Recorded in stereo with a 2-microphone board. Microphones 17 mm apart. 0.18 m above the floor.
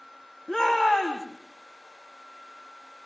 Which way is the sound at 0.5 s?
40° left (ahead or behind).